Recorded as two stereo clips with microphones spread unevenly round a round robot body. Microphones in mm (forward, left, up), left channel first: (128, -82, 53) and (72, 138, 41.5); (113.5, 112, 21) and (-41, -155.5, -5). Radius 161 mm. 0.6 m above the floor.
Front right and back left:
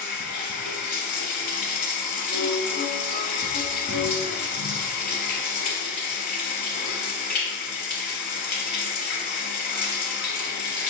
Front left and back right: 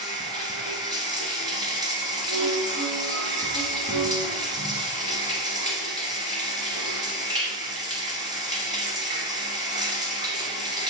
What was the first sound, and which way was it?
Running water, 40° right.